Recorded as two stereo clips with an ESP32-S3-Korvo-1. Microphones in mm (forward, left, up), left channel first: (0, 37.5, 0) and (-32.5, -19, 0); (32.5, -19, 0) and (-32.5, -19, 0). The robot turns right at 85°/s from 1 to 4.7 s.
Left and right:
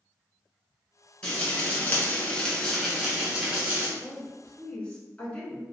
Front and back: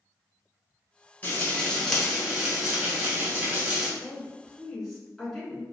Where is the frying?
10° left, 1.2 m; by 3.9 s 125° right, 1.2 m.